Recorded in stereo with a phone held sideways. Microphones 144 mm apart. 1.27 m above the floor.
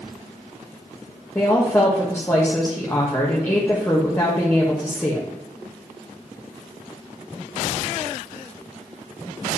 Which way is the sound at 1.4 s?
15° left (ahead or behind).